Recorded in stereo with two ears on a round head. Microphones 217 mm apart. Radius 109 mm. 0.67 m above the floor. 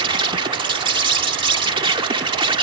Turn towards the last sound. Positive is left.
turn(degrees=-20)  # may be behind; listen again after turning